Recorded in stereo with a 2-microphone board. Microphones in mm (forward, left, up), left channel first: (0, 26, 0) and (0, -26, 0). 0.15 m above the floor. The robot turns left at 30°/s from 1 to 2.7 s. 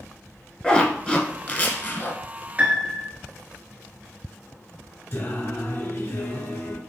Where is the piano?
25° right (ahead or behind), 0.9 m.